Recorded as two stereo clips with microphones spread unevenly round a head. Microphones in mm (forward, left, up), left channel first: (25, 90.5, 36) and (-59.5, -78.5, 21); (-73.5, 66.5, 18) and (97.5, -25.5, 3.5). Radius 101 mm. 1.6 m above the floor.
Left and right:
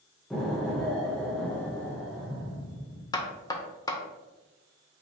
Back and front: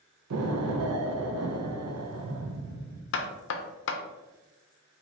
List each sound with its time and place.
0.3 s an explosion: 25° right, 0.6 m
3.1 s knocking: 135° left, 0.6 m